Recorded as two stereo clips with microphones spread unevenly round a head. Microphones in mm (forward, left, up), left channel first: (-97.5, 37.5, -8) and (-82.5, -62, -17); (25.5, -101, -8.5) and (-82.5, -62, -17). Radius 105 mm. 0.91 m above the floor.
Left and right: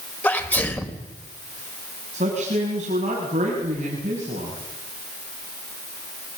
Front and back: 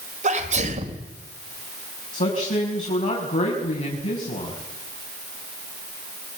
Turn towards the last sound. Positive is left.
turn(degrees=-35)